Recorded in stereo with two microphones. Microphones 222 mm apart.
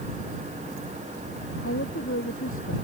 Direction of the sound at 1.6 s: 75° left (ahead or behind).